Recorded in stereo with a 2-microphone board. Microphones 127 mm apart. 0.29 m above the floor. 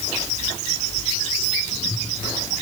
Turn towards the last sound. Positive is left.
No sound to turn to.